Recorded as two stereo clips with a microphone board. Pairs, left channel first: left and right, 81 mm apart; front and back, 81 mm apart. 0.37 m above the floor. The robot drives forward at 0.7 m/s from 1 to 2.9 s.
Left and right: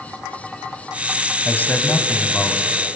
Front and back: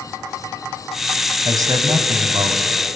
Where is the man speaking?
155° left, 2 m; by 2.6 s 160° left, 3 m.